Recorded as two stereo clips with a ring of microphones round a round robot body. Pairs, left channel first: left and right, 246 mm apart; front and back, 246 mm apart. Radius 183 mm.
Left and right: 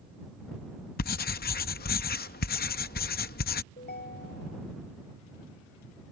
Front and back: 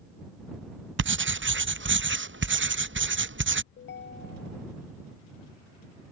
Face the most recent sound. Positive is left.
turn(degrees=40)